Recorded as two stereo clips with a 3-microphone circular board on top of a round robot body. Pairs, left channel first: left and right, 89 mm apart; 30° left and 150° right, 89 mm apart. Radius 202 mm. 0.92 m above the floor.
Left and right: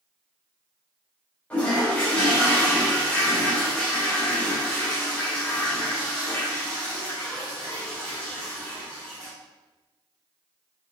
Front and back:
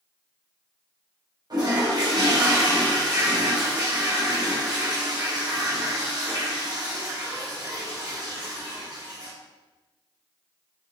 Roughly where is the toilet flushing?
Behind.